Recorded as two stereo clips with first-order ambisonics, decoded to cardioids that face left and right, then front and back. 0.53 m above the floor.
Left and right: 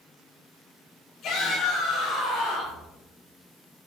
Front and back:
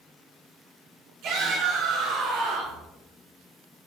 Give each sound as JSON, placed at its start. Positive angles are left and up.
{"t": 1.2, "sound": "a shout", "azimuth_deg": 150, "distance_m": 5.0}